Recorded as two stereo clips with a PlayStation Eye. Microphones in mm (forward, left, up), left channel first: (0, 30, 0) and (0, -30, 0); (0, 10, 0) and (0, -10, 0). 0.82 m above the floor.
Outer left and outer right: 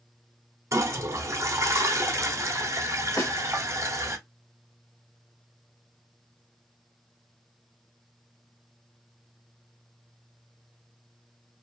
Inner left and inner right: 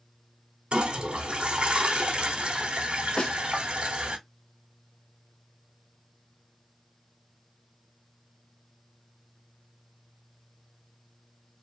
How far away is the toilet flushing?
About 0.8 m.